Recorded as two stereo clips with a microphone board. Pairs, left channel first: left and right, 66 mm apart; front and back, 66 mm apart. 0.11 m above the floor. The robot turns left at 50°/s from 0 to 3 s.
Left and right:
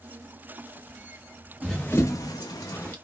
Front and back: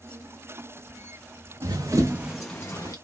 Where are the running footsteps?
Straight behind, 0.7 m; by 3.0 s 35° left, 0.7 m.